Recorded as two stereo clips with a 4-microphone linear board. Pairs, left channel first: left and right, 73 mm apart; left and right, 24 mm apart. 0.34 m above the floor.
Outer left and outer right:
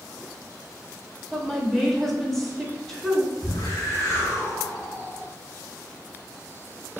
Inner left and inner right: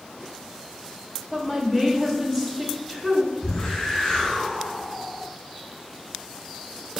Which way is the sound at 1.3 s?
5° left (ahead or behind).